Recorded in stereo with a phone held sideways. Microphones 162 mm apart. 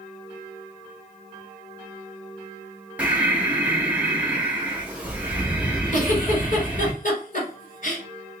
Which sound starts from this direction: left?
A giggle, at 5.9 s.